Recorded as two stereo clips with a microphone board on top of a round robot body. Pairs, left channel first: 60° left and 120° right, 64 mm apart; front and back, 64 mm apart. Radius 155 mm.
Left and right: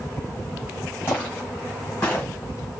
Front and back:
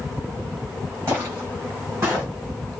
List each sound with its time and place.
1.1 s footsteps: 120° left, 2 m; by 2.2 s 125° left, 3.5 m